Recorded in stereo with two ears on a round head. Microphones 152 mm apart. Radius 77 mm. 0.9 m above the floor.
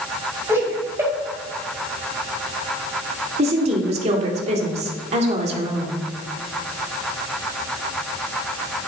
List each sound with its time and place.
0.5 s laughter: 15° right (ahead or behind), 5.5 m
3.4 s a woman speaking: 40° right (ahead or behind), 2 m